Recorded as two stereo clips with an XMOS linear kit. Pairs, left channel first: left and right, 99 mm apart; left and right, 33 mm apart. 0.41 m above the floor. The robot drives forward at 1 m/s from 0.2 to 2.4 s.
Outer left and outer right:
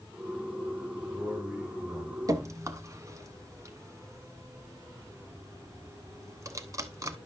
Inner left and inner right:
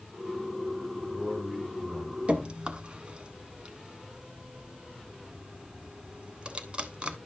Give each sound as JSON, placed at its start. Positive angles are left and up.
{"t": 0.9, "sound": "a man speaking", "side_deg": -15, "distance_m": 2.5}
{"t": 2.3, "sound": "dripping", "side_deg": -40, "distance_m": 0.8}